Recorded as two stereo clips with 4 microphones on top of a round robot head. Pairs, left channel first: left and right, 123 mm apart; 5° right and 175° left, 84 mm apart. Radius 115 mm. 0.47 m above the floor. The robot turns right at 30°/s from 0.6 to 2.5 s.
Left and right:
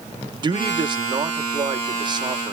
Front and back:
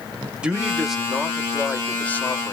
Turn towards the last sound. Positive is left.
turn(degrees=-55)